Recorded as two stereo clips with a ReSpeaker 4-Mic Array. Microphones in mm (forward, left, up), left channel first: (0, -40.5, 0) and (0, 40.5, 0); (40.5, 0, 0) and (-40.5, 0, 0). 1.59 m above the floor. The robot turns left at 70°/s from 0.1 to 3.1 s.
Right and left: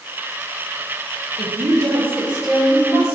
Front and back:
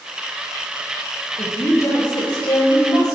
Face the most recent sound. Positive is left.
turn(degrees=-40)